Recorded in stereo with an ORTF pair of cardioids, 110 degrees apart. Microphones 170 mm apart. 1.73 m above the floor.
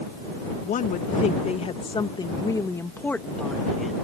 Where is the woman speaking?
55° left; by 3.9 s straight ahead.